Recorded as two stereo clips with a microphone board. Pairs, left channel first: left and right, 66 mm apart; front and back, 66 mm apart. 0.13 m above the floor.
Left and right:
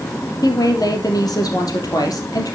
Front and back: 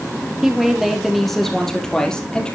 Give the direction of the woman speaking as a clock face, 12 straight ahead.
9 o'clock.